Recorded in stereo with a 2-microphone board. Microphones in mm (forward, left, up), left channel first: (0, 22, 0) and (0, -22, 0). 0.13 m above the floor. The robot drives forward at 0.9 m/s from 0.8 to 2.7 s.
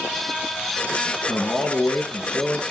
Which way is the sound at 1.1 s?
55° left (ahead or behind).